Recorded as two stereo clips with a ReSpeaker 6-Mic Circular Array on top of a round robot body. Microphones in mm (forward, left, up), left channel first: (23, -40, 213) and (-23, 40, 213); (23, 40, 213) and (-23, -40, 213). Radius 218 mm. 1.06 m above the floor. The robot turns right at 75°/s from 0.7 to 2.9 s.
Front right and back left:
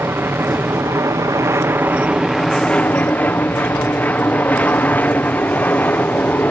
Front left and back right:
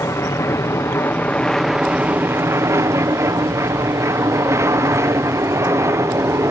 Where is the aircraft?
80° left; by 6.5 s 115° right.